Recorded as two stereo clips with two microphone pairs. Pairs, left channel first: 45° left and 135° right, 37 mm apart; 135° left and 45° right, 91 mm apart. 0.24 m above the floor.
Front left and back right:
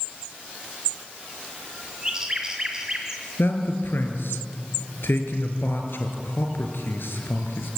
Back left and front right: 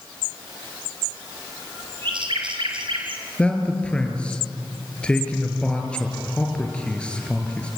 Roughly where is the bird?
Ahead right.